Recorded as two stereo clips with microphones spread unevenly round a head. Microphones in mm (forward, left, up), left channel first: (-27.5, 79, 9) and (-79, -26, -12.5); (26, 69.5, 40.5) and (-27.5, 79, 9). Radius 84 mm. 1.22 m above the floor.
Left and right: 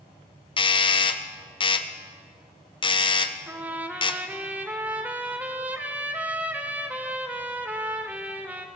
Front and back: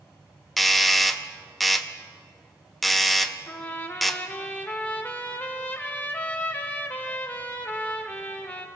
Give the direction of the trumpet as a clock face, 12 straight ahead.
1 o'clock.